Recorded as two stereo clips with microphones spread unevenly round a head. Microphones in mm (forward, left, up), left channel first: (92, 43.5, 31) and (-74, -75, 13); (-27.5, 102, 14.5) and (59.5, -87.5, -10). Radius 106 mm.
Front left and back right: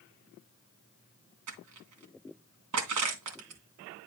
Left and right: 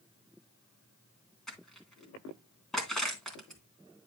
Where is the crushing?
160° right, 3 m.